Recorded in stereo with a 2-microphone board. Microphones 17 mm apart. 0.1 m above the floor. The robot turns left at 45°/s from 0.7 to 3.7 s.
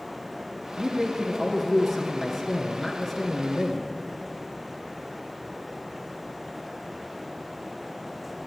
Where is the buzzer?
No buzzer in this recording.